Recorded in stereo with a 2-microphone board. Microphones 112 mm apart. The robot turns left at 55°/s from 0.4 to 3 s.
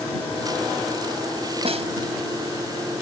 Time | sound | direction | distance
1.6 | a snare drum | 60° right (ahead or behind) | ?